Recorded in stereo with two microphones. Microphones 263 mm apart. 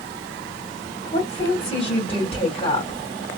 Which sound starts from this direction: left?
A woman speaking, at 1.1 s.